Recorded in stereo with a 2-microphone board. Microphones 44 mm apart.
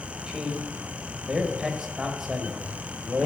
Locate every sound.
0.3 s a man speaking: 15° right (ahead or behind), 1.2 m